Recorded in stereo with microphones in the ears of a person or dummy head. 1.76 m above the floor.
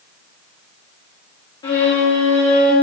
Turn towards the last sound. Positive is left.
turn(degrees=20)  # may be behind; listen again after turning